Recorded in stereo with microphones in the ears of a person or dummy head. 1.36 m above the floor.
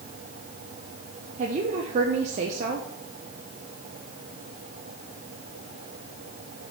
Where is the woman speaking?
40° right (ahead or behind), 1.0 m.